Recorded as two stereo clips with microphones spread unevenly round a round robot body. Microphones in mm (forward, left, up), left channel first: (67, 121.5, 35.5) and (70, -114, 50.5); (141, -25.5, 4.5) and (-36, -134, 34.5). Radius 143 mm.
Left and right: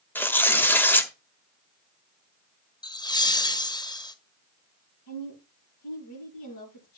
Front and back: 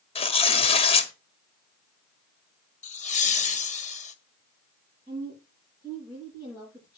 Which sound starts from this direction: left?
A woman speaking, at 5.1 s.